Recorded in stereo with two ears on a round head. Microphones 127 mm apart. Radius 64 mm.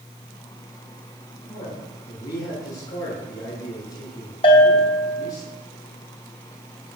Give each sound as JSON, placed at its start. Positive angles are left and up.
{"t": 1.5, "sound": "a man speaking", "side_deg": 25, "distance_m": 8.5}
{"t": 4.4, "sound": "a bell", "side_deg": 40, "distance_m": 3.5}